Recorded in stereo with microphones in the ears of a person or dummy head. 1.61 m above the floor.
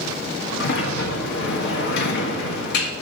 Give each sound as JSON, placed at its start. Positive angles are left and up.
{"t": 0.6, "sound": "a sliding door", "side_deg": 60, "distance_m": 1.4}